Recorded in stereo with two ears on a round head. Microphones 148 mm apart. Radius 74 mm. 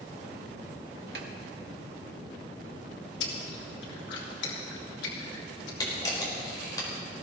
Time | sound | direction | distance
1.1 | a snare drum | 65° right (ahead or behind) | 1.7 m
3.2 | chewing | 85° left | 3.5 m
5.8 | a camera shutter | 20° left (ahead or behind) | 4.5 m